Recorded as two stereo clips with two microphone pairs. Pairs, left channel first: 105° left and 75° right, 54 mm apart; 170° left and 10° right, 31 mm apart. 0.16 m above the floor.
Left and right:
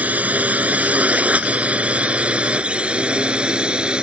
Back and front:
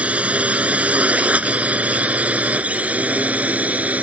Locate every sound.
0.0 s a drone: 25° right; by 4.0 s 10° right